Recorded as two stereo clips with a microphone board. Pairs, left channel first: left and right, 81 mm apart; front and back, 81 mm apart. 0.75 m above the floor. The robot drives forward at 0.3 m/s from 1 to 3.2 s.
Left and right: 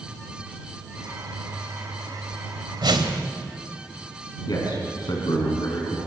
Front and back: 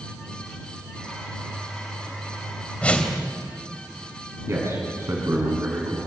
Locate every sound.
2.8 s a whoosh: 75° right, 2 m
4.5 s a man speaking: 125° left, 6 m